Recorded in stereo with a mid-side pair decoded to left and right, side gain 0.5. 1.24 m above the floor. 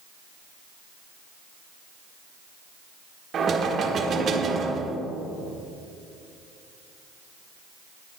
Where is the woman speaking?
No woman speaking in this recording.